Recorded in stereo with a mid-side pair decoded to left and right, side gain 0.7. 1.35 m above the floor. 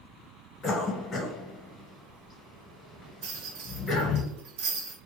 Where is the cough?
30° left, 1.3 m.